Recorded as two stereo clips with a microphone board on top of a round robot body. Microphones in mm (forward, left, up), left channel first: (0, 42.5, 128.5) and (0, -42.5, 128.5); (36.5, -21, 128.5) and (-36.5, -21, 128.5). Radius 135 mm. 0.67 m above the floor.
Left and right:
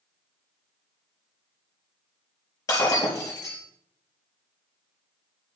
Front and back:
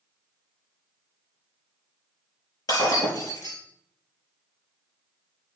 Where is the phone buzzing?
I don't hear a phone buzzing.